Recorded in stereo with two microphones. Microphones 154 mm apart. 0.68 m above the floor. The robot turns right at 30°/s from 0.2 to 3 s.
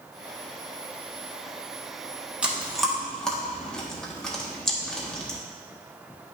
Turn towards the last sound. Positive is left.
turn(degrees=5)  # may be behind; listen again after turning